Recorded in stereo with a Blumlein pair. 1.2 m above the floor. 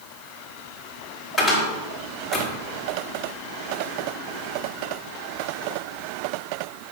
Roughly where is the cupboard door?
Ahead.